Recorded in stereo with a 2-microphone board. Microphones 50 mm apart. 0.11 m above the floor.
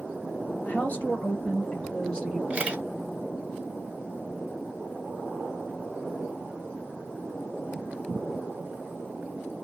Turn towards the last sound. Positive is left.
turn(degrees=-25)  # may be behind; listen again after turning